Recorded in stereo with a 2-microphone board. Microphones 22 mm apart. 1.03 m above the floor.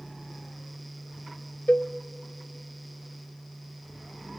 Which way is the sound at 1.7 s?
75° left (ahead or behind).